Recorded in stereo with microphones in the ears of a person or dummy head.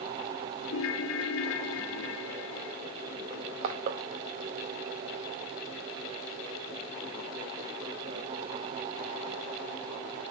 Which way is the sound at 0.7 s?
70° left (ahead or behind).